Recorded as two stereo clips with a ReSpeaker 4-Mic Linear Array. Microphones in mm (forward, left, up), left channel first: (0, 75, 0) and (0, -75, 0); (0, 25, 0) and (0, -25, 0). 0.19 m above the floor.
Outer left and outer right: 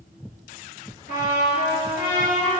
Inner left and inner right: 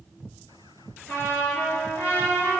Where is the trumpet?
55° left (ahead or behind), 4 m.